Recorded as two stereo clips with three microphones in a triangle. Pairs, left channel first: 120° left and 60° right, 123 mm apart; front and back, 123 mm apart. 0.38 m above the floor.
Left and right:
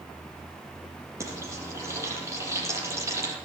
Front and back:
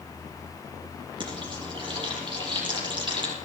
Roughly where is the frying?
Behind right.